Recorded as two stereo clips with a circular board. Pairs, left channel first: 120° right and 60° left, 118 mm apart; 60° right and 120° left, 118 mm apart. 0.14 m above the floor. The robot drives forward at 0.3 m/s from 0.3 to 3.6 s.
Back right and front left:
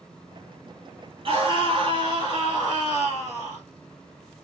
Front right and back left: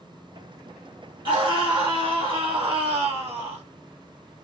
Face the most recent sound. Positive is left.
turn(degrees=120)